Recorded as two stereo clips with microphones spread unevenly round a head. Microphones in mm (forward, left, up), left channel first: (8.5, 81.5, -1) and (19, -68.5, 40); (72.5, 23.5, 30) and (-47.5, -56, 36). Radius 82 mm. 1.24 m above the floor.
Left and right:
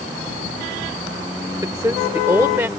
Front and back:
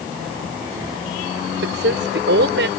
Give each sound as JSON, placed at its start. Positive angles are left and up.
{"t": 1.6, "sound": "a woman speaking", "azimuth_deg": -160}